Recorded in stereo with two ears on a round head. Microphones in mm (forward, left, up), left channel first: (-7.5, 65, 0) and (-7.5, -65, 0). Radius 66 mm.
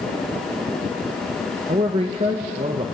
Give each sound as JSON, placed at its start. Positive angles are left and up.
{"t": 1.7, "sound": "a man speaking", "side_deg": -40, "distance_m": 1.2}